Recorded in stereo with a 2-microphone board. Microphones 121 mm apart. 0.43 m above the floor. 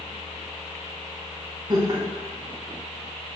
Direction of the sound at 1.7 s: 35° right (ahead or behind).